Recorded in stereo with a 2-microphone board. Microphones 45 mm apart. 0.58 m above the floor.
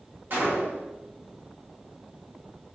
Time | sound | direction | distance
0.3 | a gunshot | 45° right (ahead or behind) | 1.0 m